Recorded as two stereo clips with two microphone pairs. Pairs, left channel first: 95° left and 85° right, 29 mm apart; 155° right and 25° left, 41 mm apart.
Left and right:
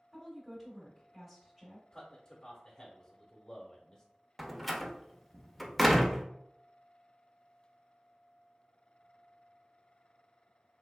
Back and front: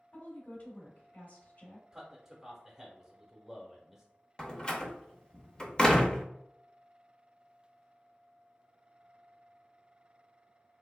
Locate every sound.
0.1 s a woman speaking: 170° right, 1.3 m
1.9 s a man speaking: 85° left, 0.9 m
4.4 s a door slam: straight behind, 0.5 m